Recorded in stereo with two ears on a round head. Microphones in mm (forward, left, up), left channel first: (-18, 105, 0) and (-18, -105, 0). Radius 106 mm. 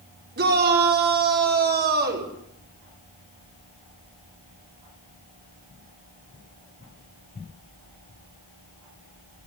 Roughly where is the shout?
Right.